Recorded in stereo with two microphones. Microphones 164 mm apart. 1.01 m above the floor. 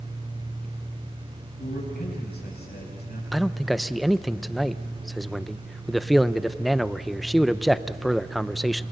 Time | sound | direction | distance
1.6 | a man speaking | 80° left | 8 m
3.3 | a man speaking | centre (ahead or behind) | 0.5 m